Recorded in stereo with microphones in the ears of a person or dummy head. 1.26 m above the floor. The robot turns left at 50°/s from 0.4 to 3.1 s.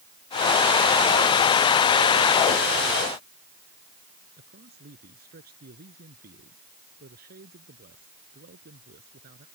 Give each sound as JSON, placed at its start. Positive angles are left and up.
{"t": 4.4, "sound": "a man speaking", "side_deg": -45}